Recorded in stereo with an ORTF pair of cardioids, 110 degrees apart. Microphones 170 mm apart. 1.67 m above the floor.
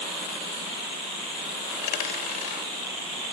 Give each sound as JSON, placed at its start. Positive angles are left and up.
{"t": 1.7, "sound": "a dropped coin", "azimuth_deg": 70, "distance_m": 3.5}